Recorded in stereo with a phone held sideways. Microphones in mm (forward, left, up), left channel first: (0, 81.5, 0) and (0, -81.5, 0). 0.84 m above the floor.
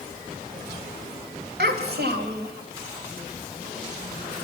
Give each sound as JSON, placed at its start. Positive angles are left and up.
{"t": 1.6, "sound": "a child speaking", "side_deg": -90, "distance_m": 3.0}